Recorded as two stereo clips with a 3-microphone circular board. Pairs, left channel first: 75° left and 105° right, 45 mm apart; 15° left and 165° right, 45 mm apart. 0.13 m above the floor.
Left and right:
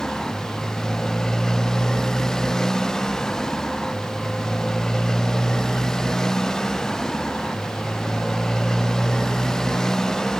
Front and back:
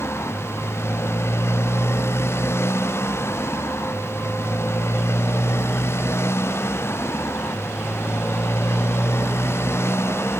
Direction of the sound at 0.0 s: 5° right.